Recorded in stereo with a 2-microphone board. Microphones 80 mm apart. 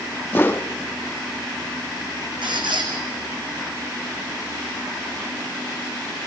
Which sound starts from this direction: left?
A whoosh, at 0.3 s.